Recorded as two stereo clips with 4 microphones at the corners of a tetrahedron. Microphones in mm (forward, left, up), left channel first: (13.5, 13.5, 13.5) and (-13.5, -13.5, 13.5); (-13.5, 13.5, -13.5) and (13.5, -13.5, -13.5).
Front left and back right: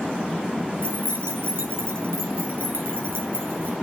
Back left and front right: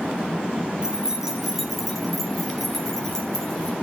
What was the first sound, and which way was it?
Keys jangling, 115° right.